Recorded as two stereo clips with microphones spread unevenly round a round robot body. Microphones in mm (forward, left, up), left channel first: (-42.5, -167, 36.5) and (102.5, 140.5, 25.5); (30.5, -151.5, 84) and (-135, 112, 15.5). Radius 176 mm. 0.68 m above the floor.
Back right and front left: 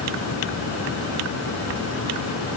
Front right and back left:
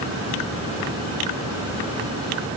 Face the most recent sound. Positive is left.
No sound to turn to.